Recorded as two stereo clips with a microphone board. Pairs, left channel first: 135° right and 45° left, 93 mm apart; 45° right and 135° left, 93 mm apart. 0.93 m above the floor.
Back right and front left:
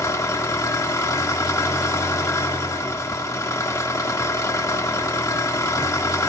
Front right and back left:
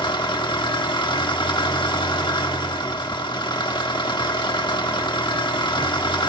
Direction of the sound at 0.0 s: 80° right.